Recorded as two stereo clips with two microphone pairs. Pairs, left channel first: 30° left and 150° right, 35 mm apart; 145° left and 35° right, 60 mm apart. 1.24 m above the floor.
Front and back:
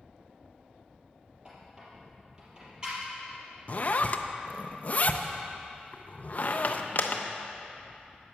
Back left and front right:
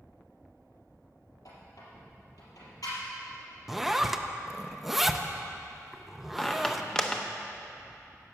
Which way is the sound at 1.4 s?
145° left.